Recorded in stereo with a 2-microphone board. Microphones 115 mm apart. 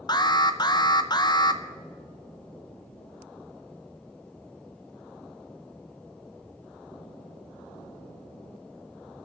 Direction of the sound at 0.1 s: 40° left (ahead or behind).